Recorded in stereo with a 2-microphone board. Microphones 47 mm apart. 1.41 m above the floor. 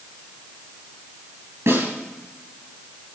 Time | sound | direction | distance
1.7 | a snare drum | 70° right (ahead or behind) | 7.5 m